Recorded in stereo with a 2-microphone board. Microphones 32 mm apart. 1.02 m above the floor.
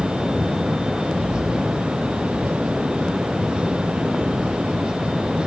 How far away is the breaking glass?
I don't hear breaking glass.